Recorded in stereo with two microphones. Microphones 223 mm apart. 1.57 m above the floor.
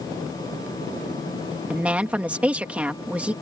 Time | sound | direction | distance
1.7 | a woman speaking | 5° right (ahead or behind) | ?